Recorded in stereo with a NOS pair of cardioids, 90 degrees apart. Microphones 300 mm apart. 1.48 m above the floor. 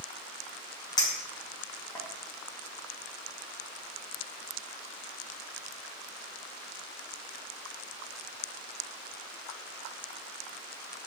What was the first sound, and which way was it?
A clink, 15° left.